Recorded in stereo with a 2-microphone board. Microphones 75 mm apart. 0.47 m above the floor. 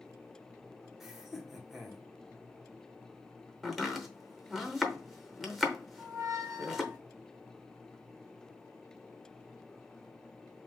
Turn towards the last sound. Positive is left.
turn(degrees=-25)  # may be behind; listen again after turning